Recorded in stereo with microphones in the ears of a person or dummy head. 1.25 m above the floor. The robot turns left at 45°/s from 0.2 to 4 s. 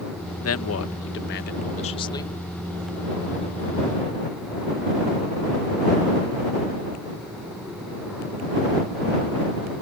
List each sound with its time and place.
0.4 s a man speaking: 100° left; by 2.4 s 15° left